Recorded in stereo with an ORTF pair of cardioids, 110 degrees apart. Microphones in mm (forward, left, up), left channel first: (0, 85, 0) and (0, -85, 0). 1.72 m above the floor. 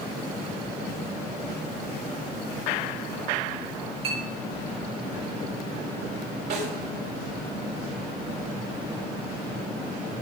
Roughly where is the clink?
Right.